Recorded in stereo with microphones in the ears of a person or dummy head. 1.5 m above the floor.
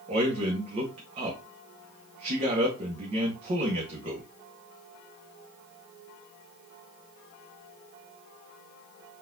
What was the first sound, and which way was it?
A man speaking, 30° right (ahead or behind).